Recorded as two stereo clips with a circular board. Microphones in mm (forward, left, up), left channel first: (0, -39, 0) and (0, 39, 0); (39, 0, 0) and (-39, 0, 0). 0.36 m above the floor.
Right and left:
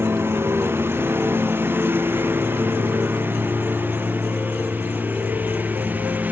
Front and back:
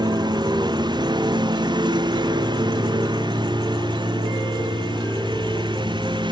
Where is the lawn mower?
150° left; by 6.3 s 160° left.